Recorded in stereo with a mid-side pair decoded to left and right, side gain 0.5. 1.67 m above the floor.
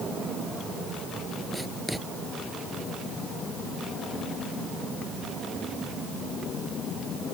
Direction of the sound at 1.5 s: Straight ahead.